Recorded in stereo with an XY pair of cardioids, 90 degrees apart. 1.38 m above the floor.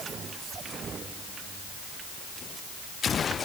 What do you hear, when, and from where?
Only background noise.